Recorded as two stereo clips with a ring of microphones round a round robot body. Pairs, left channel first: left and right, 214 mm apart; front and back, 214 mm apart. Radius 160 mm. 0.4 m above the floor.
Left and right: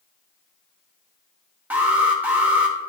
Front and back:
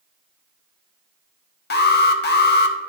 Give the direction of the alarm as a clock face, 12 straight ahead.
12 o'clock.